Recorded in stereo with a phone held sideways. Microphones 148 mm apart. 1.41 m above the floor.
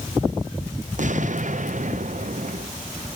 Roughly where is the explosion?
Right.